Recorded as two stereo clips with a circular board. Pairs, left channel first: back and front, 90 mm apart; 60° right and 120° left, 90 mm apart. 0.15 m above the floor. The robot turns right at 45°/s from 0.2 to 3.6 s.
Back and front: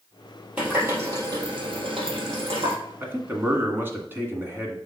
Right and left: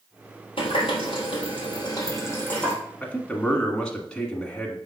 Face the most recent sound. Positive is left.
turn(degrees=10)